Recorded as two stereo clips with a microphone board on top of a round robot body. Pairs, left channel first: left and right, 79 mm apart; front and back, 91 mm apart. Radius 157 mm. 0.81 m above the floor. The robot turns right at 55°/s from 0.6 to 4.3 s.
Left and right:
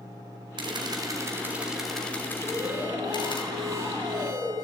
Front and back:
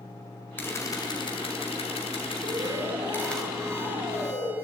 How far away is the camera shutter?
About 1.6 m.